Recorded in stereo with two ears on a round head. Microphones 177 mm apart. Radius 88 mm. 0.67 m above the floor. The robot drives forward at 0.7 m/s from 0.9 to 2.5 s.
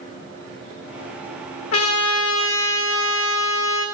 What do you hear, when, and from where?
1.7 s a trumpet: 75° left (ahead or behind), 1.0 m; by 3.9 s 70° left (ahead or behind), 1.1 m